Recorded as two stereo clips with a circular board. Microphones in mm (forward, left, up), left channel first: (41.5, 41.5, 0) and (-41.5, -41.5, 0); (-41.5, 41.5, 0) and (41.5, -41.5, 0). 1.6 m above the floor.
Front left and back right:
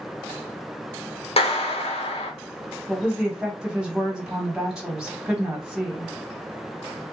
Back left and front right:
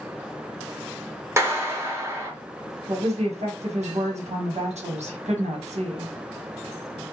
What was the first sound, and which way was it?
A clap, 20° left.